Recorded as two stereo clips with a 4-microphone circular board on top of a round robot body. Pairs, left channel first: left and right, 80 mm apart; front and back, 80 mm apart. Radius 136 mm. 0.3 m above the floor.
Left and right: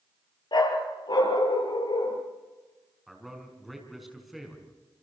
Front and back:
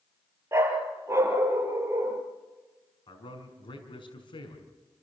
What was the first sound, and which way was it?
A dog barking, 120° left.